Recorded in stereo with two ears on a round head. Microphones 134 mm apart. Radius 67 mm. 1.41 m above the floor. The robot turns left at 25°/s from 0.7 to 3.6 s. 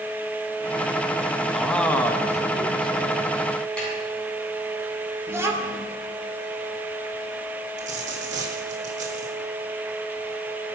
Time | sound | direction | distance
1.5 | a man speaking | straight behind | 1.6 m
3.8 | a snare drum | 5° left (ahead or behind) | 8 m
5.3 | a child speaking | 20° right (ahead or behind) | 2.5 m
7.8 | a dropped coin | 50° right (ahead or behind) | 3.5 m